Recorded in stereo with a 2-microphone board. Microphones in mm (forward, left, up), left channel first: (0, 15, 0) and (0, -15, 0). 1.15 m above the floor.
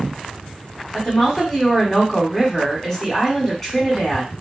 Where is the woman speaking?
10° left (ahead or behind), 1.1 m.